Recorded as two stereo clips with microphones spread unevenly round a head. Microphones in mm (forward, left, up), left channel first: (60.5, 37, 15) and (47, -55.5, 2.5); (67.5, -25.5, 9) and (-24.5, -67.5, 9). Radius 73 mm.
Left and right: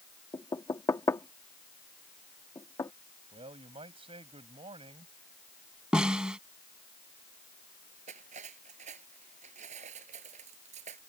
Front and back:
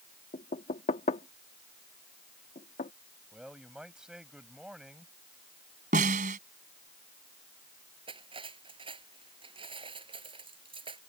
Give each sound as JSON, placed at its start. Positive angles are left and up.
{"t": 0.3, "sound": "knocking", "azimuth_deg": 25}
{"t": 3.3, "sound": "a man speaking", "azimuth_deg": -70}
{"t": 5.9, "sound": "a snare drum", "azimuth_deg": 175}
{"t": 8.1, "sound": "cutlery clinking", "azimuth_deg": -120}